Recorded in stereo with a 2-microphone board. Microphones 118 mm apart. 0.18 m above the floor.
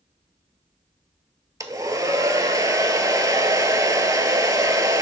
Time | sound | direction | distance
1.6 | a hair dryer | 30° right (ahead or behind) | 0.7 m